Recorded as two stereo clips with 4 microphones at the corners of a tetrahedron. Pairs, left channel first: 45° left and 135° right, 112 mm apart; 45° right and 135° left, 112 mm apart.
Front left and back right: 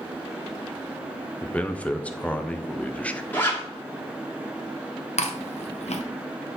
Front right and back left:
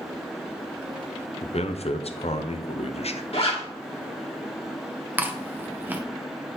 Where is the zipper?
25° right, 2 m.